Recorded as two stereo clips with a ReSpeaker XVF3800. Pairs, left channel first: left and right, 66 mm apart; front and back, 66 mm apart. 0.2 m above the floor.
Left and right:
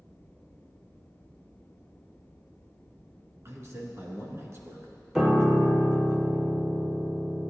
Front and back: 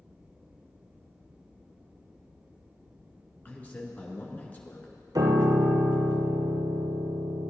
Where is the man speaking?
55° right, 2.5 m.